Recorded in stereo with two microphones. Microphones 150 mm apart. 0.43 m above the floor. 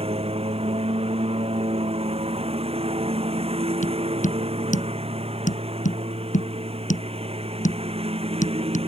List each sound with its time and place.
0.0 s a lawn mower: 40° right (ahead or behind)
3.8 s tapping: 55° left (ahead or behind)